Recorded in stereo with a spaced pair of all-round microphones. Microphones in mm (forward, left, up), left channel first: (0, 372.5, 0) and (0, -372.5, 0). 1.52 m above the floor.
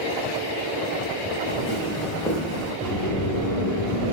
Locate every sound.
1.5 s footsteps: 35° left (ahead or behind), 1.8 m; by 2.7 s 15° right (ahead or behind), 1.5 m
2.8 s a sliding door: 25° left (ahead or behind), 0.7 m